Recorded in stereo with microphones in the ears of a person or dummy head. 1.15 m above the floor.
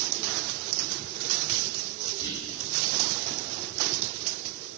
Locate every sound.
2.2 s whispering: 25° left (ahead or behind), 3 m